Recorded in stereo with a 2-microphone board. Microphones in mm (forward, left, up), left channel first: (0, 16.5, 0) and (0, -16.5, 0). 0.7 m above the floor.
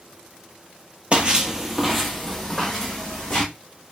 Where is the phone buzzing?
No phone buzzing in this recording.